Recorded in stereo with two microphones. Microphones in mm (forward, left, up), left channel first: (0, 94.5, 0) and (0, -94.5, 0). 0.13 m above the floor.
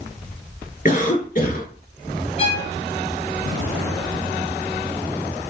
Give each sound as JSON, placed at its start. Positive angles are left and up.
{"t": 0.8, "sound": "a cough", "side_deg": 50, "distance_m": 1.5}
{"t": 2.4, "sound": "a violin", "side_deg": 35, "distance_m": 0.7}